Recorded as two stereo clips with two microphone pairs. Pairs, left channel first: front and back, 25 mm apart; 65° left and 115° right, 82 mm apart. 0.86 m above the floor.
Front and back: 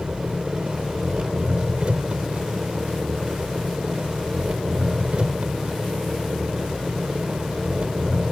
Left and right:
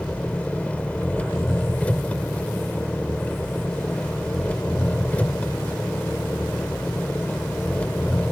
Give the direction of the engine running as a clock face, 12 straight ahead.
7 o'clock.